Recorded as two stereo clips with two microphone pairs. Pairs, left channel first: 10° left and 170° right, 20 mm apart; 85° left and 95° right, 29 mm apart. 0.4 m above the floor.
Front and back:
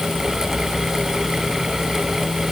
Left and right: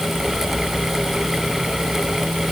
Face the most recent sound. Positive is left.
No sound to turn to.